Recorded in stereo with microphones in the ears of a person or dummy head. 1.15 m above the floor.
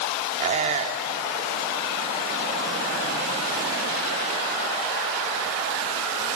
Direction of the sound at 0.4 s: 35° right (ahead or behind).